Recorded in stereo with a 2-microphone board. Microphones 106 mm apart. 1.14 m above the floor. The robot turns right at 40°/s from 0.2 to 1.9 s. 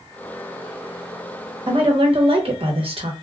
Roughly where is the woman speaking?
Right.